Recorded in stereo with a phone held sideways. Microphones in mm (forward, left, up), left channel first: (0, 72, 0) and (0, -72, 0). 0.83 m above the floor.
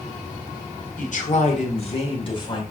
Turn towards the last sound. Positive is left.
turn(degrees=35)  # may be behind; listen again after turning